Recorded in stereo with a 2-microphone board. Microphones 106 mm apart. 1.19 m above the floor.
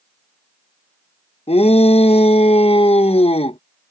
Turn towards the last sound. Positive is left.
turn(degrees=70)  # may be behind; listen again after turning